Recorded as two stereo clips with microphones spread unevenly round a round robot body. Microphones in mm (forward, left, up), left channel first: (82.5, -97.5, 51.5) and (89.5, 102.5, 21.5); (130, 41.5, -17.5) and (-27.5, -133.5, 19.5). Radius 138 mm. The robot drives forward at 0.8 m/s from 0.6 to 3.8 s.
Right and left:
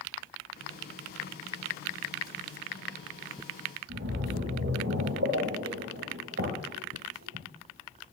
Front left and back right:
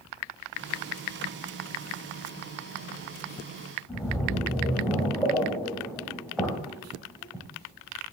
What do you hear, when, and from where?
3.9 s a splash: 135° left, 2 m